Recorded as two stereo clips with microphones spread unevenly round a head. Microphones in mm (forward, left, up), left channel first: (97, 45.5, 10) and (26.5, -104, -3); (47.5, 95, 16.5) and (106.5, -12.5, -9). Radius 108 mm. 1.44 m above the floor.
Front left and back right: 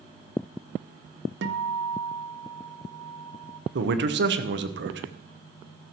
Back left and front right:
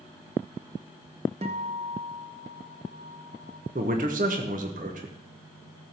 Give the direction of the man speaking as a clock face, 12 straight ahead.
4 o'clock.